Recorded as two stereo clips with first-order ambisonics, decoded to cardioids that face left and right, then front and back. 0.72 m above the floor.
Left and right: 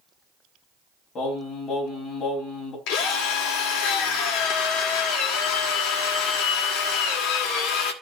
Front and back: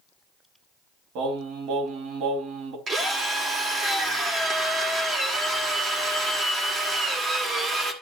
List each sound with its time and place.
1.1 s singing: 155° left, 3.5 m
2.9 s a drill: 110° left, 2 m